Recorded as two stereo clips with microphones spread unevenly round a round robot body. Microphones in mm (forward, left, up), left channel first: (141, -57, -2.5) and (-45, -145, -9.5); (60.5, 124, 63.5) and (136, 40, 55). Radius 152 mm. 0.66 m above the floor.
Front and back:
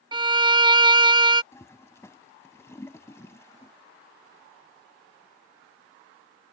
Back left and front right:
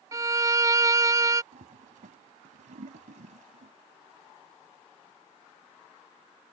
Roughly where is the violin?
Right.